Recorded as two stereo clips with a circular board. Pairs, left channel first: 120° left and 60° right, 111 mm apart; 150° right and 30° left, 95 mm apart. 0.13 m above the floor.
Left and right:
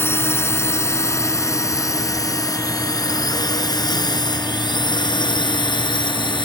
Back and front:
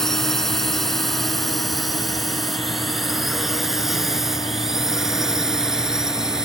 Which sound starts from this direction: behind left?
A drone, at 0.0 s.